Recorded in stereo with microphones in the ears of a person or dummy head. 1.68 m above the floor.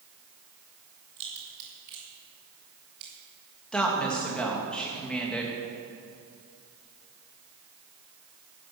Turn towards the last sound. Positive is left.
turn(degrees=5)  # may be behind; listen again after turning